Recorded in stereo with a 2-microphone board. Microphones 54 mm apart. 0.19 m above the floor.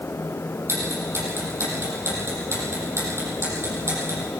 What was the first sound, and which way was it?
Ticking, 55° right (ahead or behind).